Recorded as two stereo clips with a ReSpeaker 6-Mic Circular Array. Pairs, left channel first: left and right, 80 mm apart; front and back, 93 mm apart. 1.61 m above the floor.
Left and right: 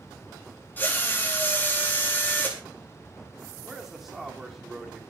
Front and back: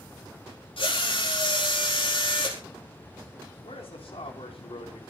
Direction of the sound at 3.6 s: Straight ahead.